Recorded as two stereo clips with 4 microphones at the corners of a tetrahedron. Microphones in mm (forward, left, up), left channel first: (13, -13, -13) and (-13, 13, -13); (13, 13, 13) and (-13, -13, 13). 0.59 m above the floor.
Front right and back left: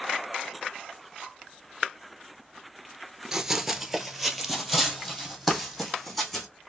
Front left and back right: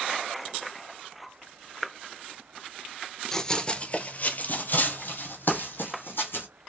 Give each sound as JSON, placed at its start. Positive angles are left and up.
{"t": 3.3, "sound": "running footsteps", "azimuth_deg": 90, "distance_m": 0.6}